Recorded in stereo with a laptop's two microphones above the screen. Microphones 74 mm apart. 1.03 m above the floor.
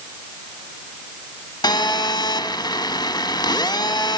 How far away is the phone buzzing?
About 1.3 m.